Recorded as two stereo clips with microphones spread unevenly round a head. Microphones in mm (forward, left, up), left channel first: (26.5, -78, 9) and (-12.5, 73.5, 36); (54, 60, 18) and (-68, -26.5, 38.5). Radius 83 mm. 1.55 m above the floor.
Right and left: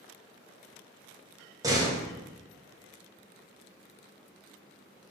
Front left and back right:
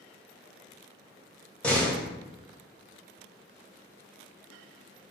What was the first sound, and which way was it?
A door slam, 125° left.